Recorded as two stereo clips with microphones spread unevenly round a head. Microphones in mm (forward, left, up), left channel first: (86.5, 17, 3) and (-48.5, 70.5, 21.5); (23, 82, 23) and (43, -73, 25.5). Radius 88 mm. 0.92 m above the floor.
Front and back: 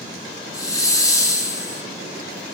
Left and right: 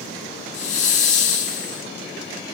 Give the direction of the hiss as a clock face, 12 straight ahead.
10 o'clock.